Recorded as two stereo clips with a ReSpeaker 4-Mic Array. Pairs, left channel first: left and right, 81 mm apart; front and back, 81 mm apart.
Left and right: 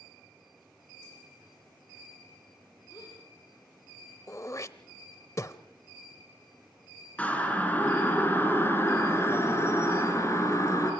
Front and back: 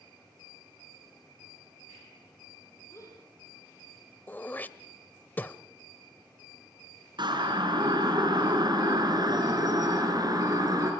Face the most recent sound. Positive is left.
turn(degrees=140)